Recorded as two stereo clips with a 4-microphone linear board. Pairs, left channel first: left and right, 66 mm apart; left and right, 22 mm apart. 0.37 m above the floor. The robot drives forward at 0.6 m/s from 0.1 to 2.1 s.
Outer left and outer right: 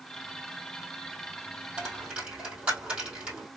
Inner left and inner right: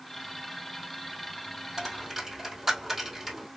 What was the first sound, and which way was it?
A dropped coin, 20° right (ahead or behind).